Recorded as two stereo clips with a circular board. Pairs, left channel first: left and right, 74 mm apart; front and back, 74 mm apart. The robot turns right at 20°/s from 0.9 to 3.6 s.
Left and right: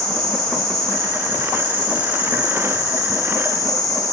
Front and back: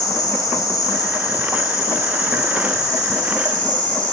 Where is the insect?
10° left, 3 m; by 4.1 s 60° left, 3 m.